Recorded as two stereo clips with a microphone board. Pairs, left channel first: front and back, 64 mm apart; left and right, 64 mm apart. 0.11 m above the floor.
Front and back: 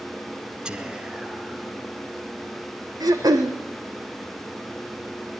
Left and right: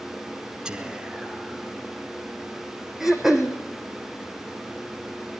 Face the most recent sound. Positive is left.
turn(degrees=-175)